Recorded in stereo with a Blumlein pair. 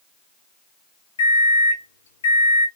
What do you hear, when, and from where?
1.2 s a microwave: 65° left, 0.6 m